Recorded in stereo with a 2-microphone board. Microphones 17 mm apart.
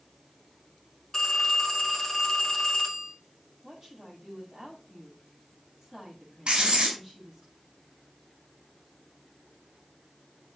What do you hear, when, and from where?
1.1 s a phone ringing: 25° left (ahead or behind), 2 m
3.6 s a woman speaking: 20° right (ahead or behind), 8 m
6.5 s writing: 70° right (ahead or behind), 4 m